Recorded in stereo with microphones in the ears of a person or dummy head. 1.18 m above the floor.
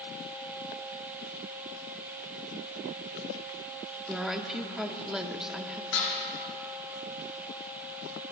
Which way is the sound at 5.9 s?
80° left.